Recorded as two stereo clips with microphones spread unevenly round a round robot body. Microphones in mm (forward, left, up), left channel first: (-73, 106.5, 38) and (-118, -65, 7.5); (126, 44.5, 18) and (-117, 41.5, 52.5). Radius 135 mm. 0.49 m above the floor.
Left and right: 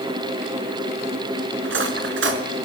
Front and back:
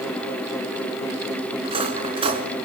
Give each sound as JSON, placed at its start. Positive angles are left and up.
{"t": 1.6, "sound": "cutlery clinking", "azimuth_deg": -110, "distance_m": 3.5}